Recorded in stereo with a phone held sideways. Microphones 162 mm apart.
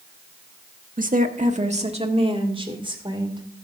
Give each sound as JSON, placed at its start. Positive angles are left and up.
{"t": 1.0, "sound": "a woman speaking", "side_deg": -60, "distance_m": 1.1}